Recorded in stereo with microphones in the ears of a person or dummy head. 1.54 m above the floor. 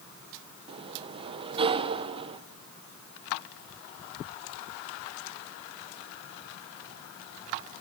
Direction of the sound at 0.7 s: 25° right (ahead or behind).